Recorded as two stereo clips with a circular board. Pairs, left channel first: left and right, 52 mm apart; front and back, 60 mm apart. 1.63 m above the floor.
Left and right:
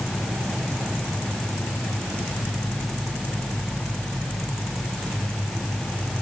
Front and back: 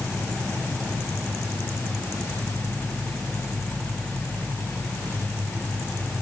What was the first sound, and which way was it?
Only background noise.